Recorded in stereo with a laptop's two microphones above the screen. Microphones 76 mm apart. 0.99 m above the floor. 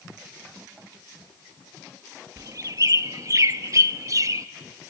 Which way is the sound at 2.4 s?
45° right (ahead or behind).